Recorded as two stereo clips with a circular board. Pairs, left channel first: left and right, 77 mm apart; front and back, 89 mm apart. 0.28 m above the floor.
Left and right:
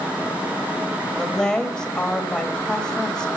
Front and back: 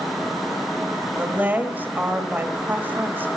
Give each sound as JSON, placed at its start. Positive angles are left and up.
{"t": 1.2, "sound": "a woman speaking", "azimuth_deg": 155, "distance_m": 1.4}